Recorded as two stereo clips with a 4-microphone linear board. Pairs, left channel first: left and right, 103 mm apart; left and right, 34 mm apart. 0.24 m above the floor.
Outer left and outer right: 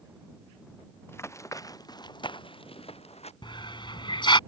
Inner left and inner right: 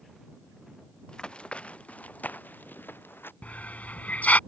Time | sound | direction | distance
1.1 | running footsteps | 20° left (ahead or behind) | ?
3.4 | a hiss | 45° left (ahead or behind) | ?